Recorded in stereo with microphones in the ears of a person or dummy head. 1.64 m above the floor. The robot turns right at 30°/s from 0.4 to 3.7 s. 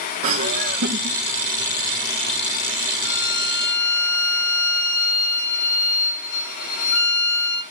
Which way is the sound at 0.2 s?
40° right (ahead or behind).